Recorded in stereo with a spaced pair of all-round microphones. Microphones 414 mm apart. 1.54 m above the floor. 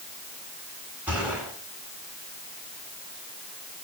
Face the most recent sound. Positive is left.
turn(degrees=-5)  # may be behind; listen again after turning